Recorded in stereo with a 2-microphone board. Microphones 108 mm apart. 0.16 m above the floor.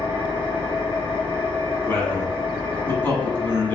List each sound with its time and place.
0.0 s an engine running: 55° left (ahead or behind), 1.5 m
1.9 s a man speaking: 20° left (ahead or behind), 1.1 m